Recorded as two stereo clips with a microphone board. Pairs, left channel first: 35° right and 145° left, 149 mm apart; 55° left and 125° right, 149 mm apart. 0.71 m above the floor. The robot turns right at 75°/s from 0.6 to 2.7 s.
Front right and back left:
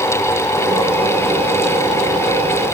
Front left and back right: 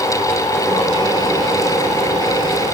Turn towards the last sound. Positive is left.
No sound to turn to.